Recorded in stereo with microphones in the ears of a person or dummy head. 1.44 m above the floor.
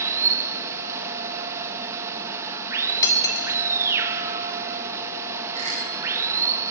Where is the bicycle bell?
40° right (ahead or behind), 6 m.